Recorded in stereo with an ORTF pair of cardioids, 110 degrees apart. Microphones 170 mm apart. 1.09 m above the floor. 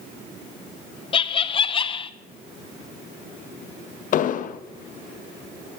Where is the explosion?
50° left, 0.6 m.